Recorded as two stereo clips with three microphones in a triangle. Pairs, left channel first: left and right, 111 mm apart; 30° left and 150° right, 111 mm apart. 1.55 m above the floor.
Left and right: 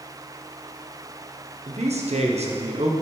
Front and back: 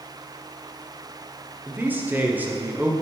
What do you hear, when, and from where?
1.7 s a man speaking: 75° right, 1.0 m